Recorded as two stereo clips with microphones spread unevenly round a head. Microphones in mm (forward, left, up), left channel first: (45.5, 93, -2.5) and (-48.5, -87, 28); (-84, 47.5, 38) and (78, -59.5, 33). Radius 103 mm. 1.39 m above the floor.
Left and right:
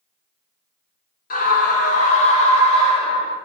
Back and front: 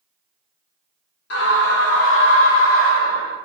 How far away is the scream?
About 2 m.